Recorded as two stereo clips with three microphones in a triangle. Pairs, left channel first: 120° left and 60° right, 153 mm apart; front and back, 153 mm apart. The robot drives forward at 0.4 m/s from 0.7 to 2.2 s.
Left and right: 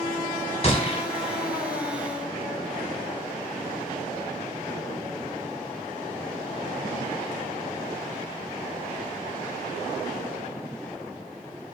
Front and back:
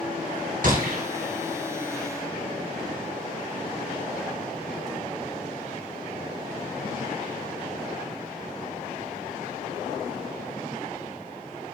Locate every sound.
0.6 s a gunshot: 165° left, 3 m